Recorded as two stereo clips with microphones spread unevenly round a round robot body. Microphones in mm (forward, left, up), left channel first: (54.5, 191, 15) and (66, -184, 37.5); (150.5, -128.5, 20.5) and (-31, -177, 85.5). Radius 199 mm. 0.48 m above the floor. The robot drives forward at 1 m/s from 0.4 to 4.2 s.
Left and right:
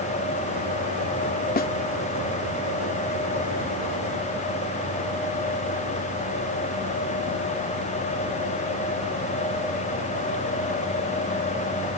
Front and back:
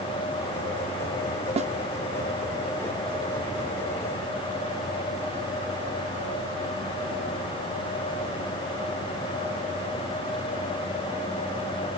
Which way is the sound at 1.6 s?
130° left.